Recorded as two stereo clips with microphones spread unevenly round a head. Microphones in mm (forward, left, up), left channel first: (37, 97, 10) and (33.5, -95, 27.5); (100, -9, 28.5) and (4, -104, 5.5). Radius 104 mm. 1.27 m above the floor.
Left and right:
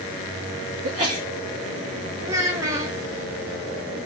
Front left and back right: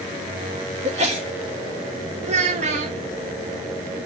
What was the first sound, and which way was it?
A sneeze, 105° right.